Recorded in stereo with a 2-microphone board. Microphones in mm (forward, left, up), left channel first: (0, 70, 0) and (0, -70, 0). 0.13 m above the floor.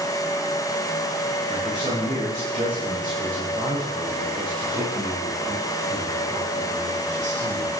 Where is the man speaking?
80° right, 9.5 m; by 7.7 s 60° right (ahead or behind), 7 m.